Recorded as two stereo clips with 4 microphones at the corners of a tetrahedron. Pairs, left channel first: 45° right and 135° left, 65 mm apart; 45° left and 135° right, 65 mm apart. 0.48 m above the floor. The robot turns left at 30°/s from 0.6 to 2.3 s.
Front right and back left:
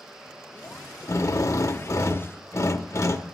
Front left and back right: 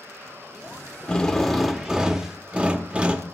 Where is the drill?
30° right, 0.7 m; by 3.2 s 65° right, 0.7 m.